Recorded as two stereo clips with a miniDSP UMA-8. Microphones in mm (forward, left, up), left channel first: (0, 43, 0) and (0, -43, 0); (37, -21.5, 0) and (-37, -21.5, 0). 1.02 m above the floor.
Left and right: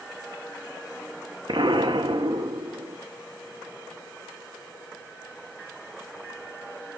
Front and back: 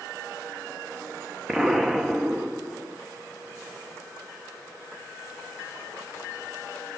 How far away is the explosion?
About 1.6 m.